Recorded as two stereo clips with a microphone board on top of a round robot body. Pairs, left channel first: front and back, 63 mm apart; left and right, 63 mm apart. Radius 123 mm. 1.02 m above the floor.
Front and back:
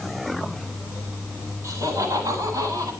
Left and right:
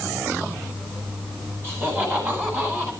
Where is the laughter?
145° right, 10 m; by 2.9 s 150° right, 11 m.